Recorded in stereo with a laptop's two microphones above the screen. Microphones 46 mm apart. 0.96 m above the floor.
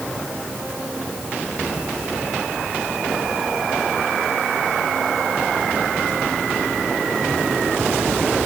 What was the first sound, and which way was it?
Only background noise.